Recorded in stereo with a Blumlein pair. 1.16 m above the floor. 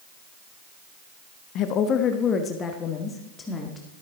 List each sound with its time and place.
1.6 s a woman speaking: 35° left, 1.1 m; by 4.0 s 10° left, 2.5 m